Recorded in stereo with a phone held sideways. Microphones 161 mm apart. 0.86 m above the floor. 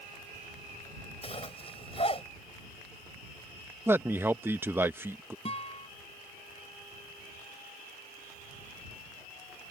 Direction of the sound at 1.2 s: 35° left (ahead or behind).